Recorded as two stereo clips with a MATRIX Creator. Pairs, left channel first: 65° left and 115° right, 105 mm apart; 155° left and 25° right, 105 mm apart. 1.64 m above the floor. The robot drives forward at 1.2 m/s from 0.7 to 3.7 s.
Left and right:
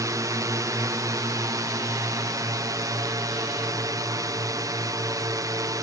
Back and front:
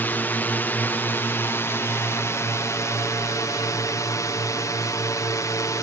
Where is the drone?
140° right; by 5.8 s 155° right.